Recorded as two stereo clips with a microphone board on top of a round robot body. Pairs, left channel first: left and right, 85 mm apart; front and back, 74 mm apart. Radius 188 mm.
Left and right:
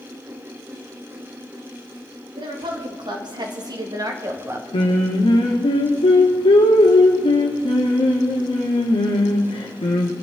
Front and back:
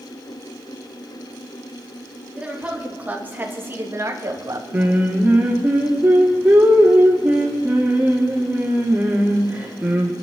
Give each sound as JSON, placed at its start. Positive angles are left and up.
{"t": 2.4, "sound": "a woman speaking", "azimuth_deg": -105, "distance_m": 3.0}
{"t": 4.7, "sound": "singing", "azimuth_deg": 115, "distance_m": 1.3}